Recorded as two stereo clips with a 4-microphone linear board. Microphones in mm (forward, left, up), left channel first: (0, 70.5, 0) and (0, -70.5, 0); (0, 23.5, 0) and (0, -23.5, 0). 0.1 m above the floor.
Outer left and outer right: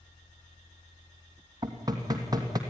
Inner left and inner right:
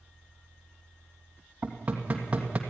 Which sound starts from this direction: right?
Knocking, at 1.6 s.